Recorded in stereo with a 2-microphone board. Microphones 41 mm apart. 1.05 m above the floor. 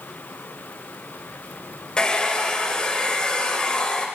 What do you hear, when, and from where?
2.0 s a hair dryer: 20° left (ahead or behind), 0.6 m